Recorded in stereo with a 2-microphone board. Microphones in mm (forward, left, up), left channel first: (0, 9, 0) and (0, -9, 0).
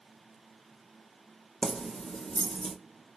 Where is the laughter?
No laughter in this recording.